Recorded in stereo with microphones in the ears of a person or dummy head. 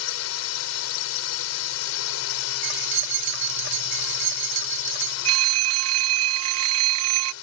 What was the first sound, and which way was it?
A drone, 80° left.